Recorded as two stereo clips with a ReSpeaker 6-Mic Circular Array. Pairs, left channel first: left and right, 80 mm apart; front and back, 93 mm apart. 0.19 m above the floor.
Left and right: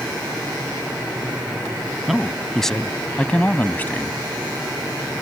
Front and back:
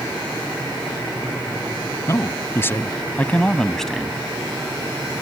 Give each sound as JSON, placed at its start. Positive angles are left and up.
{"t": 2.1, "sound": "a man speaking", "azimuth_deg": -5}